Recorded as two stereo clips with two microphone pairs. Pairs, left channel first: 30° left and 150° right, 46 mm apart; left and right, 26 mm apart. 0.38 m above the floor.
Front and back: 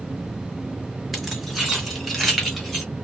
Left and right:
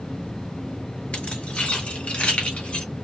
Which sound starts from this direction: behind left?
Keys jangling, at 1.1 s.